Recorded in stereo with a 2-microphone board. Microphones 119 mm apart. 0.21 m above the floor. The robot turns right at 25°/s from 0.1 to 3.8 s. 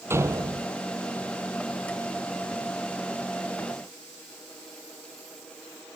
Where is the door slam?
20° right (ahead or behind); by 0.7 s 35° right (ahead or behind).